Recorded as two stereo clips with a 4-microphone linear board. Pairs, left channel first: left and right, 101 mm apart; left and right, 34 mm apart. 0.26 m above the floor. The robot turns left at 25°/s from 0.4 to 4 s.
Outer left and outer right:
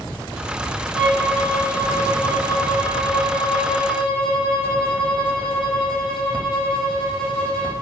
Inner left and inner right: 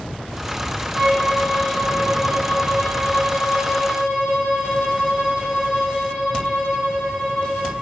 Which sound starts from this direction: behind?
A violin, at 0.9 s.